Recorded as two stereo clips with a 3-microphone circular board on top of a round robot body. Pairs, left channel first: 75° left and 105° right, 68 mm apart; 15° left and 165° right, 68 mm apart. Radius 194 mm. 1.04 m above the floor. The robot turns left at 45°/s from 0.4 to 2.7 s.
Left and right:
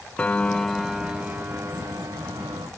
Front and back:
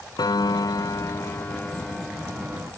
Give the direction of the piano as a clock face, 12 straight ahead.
12 o'clock.